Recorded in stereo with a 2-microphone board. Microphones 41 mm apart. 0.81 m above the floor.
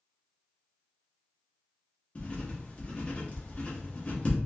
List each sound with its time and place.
2.1 s writing: 35° left (ahead or behind), 1.3 m